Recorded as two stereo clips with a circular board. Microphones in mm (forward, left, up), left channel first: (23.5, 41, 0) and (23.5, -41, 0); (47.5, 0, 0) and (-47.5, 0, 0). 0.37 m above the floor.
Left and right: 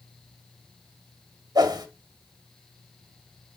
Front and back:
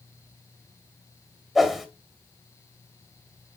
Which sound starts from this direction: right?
A whoosh, at 1.6 s.